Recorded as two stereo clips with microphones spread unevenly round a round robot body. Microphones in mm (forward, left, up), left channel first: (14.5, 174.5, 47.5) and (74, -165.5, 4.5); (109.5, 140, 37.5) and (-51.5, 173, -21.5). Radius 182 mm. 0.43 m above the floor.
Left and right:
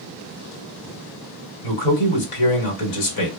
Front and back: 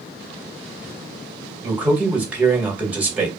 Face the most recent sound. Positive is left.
turn(degrees=100)